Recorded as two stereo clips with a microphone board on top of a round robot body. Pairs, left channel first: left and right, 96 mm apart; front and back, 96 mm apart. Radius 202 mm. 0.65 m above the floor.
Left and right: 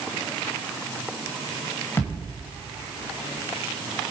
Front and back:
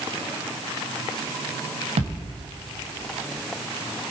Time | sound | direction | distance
2.0 | a thud | 160° left | 1.9 m